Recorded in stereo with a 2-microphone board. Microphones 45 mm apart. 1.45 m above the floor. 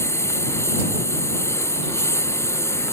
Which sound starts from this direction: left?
A lawn mower, at 0.0 s.